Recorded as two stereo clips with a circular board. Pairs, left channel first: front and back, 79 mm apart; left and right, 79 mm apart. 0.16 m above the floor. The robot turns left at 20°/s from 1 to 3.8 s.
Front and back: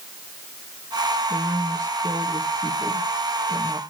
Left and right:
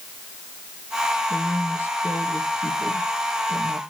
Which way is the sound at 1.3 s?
155° left.